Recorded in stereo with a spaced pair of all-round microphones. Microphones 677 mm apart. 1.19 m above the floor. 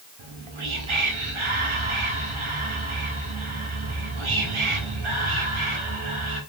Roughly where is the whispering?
Right.